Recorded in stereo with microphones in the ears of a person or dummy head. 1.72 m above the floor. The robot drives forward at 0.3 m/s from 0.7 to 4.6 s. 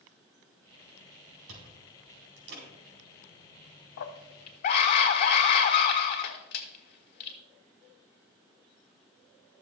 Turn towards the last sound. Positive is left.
turn(degrees=50)  # may be behind; listen again after turning